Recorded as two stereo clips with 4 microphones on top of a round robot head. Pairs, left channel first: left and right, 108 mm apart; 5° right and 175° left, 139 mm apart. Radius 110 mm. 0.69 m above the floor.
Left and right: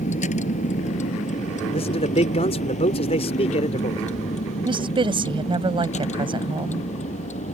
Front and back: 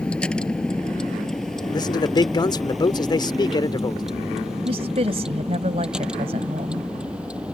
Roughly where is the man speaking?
Ahead left.